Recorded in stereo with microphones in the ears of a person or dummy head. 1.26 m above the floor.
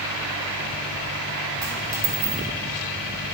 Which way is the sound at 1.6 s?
10° right (ahead or behind).